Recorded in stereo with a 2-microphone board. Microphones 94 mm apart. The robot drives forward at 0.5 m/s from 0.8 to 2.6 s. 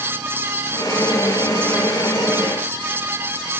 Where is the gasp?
I don't hear a gasp.